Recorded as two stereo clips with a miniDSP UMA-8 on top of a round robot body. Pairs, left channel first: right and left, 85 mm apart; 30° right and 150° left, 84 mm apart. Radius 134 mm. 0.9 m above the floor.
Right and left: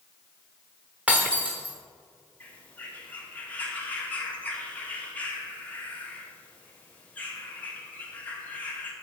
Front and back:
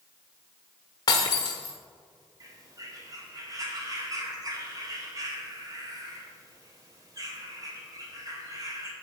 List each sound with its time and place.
1.1 s breaking glass: 15° left, 1.0 m
2.4 s a bird: 165° right, 2 m